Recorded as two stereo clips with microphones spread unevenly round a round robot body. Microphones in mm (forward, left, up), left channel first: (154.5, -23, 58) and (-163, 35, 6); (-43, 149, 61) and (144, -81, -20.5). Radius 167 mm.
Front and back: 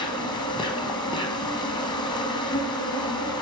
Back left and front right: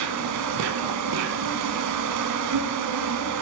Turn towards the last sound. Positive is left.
turn(degrees=-90)